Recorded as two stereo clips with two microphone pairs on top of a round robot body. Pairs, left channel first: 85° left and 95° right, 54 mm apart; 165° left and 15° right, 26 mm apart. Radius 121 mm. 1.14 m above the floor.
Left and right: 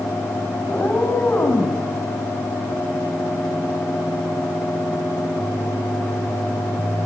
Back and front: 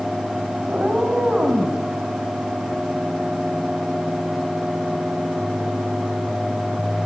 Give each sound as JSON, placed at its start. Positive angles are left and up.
{"t": 0.7, "sound": "a cat meowing", "azimuth_deg": 20, "distance_m": 4.5}